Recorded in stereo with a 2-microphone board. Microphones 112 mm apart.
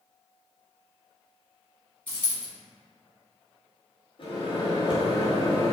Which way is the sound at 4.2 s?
50° left (ahead or behind).